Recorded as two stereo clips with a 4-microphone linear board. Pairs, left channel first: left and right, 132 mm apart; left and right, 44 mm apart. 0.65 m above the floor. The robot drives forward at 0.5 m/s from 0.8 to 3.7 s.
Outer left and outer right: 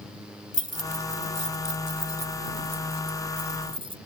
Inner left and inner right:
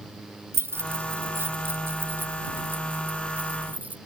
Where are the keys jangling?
75° right (ahead or behind); by 4.0 s 45° right (ahead or behind).